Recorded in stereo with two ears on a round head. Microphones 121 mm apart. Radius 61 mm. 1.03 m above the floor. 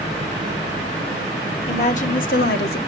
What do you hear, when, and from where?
1.7 s a woman speaking: 50° left (ahead or behind), 2 m; by 2.8 s 75° left (ahead or behind), 1.6 m